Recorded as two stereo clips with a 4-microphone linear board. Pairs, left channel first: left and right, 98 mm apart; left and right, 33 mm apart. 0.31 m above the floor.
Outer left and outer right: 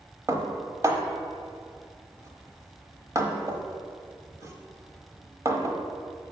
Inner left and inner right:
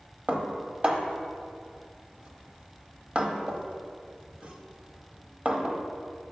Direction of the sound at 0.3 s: 35° right (ahead or behind).